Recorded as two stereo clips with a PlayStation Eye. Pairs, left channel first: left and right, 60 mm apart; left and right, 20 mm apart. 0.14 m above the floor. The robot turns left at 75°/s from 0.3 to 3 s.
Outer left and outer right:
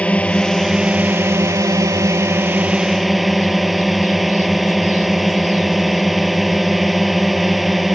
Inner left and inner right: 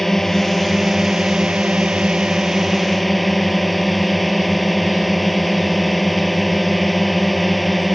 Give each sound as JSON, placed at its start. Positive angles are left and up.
{"t": 0.0, "sound": "a drone", "azimuth_deg": 25}